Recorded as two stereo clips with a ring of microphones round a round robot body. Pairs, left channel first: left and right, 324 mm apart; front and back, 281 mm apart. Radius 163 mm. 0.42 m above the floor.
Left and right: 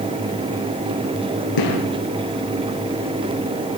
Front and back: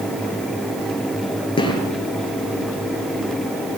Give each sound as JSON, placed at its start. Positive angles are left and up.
{"t": 1.6, "sound": "a gunshot", "azimuth_deg": 70, "distance_m": 8.0}